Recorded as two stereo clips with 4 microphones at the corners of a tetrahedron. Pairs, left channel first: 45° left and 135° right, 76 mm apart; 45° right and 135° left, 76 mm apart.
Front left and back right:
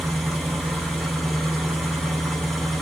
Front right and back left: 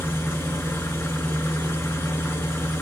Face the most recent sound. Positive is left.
turn(degrees=-45)